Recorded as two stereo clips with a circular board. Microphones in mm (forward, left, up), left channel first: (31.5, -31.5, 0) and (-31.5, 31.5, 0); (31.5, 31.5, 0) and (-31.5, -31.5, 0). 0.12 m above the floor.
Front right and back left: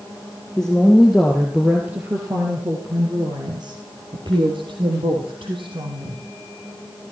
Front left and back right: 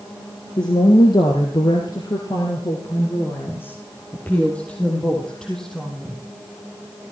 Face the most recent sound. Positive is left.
turn(degrees=135)